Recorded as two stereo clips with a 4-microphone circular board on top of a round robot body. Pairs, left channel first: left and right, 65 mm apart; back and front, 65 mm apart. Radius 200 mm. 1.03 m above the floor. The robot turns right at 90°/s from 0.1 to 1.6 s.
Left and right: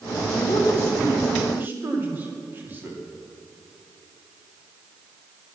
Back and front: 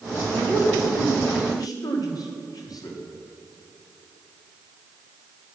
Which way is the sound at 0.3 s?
90° left.